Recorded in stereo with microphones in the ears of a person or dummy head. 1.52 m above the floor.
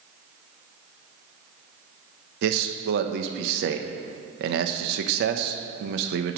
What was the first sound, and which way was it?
A man speaking, 65° right (ahead or behind).